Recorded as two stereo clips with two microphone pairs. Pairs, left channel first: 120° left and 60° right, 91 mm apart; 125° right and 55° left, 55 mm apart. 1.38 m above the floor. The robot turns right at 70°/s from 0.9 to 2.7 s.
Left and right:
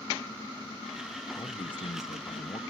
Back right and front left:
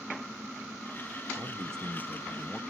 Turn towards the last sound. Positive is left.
turn(degrees=165)